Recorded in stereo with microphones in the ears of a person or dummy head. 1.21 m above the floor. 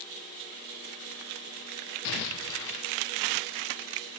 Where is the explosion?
75° left (ahead or behind), 4 m.